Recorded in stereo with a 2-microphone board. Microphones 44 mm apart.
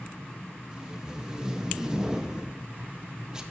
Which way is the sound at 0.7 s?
15° right (ahead or behind).